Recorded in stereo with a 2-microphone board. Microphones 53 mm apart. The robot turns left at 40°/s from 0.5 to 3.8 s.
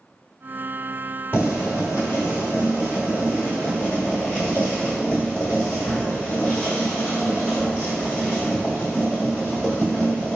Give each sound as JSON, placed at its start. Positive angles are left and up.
{"t": 1.3, "sound": "boiling", "azimuth_deg": 125, "distance_m": 1.2}